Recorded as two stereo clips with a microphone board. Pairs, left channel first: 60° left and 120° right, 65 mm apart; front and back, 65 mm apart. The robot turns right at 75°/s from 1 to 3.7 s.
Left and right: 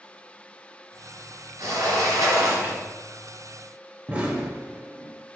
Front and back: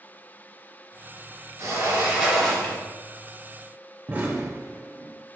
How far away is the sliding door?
About 1.5 m.